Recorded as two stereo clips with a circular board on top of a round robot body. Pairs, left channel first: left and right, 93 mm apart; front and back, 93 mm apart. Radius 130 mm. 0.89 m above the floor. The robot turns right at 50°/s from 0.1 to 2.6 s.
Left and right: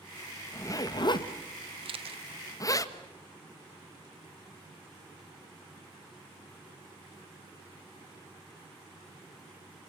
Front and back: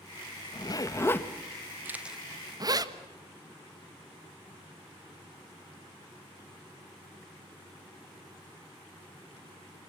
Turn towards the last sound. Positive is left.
turn(degrees=-75)